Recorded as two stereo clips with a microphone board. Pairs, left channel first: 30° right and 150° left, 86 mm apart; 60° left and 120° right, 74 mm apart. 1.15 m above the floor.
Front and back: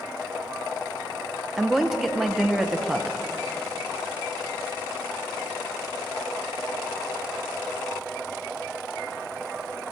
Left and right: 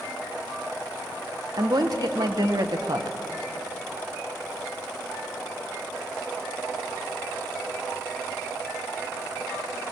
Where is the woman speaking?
125° right, 0.6 m.